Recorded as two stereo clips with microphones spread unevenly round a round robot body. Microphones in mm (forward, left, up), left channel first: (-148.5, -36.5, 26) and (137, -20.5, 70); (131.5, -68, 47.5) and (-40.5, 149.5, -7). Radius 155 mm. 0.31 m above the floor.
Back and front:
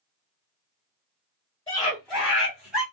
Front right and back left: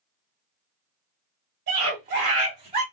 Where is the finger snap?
No finger snap in this recording.